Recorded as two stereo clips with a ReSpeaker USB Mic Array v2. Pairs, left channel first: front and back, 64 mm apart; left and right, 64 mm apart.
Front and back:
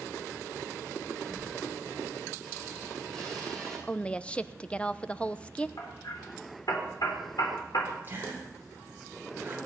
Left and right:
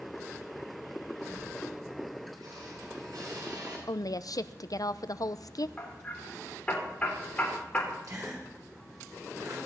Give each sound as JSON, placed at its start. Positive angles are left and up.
{"t": 1.2, "sound": "a squeak", "azimuth_deg": -85, "distance_m": 9.0}
{"t": 3.9, "sound": "a woman speaking", "azimuth_deg": 75, "distance_m": 0.6}
{"t": 5.8, "sound": "hammering", "azimuth_deg": 20, "distance_m": 4.0}
{"t": 8.0, "sound": "a gasp", "azimuth_deg": -120, "distance_m": 6.0}